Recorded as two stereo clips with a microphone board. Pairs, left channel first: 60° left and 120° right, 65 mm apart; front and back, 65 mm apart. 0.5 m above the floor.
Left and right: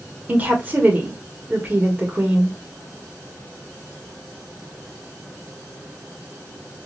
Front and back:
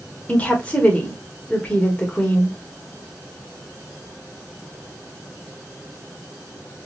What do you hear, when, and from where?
0.3 s a woman speaking: 65° right, 1.6 m